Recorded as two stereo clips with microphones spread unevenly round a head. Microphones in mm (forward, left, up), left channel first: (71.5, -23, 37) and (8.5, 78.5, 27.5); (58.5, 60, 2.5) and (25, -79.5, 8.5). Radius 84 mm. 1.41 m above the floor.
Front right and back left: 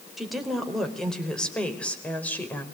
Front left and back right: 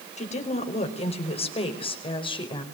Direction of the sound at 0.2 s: 35° left.